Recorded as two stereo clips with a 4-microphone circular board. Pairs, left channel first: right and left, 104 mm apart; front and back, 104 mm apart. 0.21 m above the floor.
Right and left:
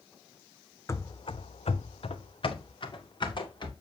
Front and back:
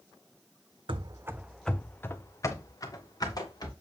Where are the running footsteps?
150° right, 0.5 m; by 3.7 s 50° right, 2 m.